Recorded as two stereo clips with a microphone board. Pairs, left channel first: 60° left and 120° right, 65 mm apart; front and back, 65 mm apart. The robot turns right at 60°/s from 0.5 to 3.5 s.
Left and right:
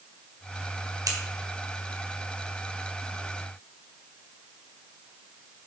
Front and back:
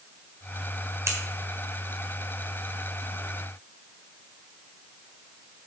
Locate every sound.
1.1 s scissors: 135° right, 1.6 m; by 1.2 s 130° right, 1.6 m